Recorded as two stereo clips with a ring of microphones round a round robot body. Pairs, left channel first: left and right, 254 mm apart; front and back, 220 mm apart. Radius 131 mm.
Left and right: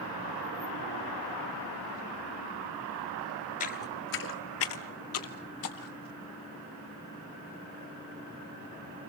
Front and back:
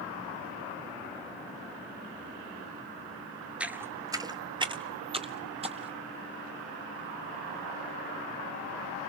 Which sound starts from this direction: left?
Footsteps, at 3.6 s.